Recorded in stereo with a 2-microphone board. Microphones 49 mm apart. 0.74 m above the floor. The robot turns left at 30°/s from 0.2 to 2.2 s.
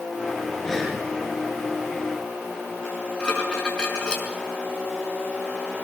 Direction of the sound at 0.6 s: 15° left (ahead or behind).